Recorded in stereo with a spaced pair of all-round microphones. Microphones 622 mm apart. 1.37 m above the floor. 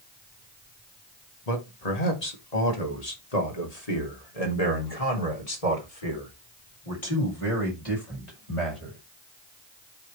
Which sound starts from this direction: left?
A man speaking, at 1.5 s.